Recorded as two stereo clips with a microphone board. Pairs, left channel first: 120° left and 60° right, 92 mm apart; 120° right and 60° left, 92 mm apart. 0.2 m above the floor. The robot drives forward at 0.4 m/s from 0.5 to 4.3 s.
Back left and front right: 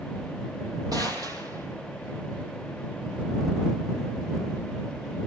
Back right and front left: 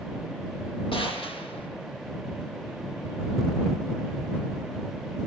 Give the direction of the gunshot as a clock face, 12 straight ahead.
4 o'clock.